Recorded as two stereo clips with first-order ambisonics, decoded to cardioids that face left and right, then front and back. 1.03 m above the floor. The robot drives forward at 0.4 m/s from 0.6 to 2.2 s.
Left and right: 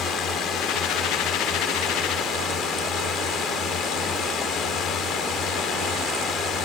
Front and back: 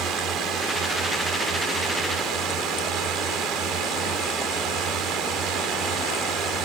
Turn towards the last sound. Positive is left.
turn(degrees=140)